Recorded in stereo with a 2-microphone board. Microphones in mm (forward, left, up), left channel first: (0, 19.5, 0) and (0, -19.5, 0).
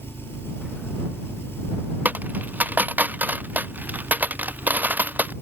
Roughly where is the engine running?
Left.